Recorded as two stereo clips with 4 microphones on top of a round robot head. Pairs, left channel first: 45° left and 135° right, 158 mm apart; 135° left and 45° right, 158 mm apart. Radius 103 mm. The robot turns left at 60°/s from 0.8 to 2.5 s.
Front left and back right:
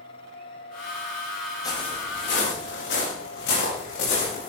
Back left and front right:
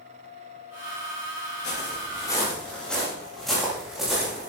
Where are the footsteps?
110° left, 8.5 m; by 4.5 s 40° left, 11 m.